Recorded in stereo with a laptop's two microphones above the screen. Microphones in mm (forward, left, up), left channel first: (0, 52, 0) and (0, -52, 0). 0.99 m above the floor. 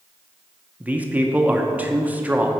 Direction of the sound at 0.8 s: 15° right (ahead or behind).